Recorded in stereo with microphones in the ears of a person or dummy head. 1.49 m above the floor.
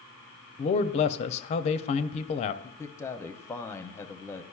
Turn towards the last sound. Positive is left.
turn(degrees=15)  # may be behind; listen again after turning